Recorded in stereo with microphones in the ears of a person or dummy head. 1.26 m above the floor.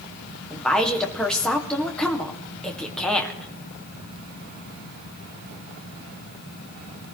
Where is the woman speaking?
15° left (ahead or behind), 2 m.